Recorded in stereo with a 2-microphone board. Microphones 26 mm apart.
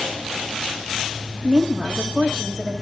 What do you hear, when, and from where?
1.4 s a woman speaking: 20° right (ahead or behind), 1.2 m